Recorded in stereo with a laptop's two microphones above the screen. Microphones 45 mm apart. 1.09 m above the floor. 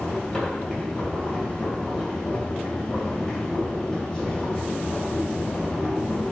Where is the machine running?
10° left (ahead or behind), 3 m.